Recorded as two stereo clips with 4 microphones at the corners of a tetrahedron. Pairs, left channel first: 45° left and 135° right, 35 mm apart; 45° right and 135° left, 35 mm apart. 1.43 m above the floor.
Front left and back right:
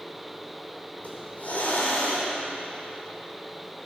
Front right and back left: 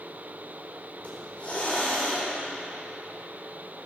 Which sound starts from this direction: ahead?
A hiss, at 1.0 s.